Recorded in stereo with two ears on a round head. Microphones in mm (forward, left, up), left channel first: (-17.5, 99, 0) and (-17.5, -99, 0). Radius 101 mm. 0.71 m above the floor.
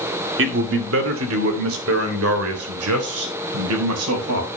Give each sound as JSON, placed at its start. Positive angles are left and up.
{"t": 0.4, "sound": "a man speaking", "side_deg": -60, "distance_m": 2.0}